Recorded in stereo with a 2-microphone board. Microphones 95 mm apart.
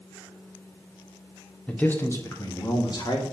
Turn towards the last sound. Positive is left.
turn(degrees=50)  # may be behind; listen again after turning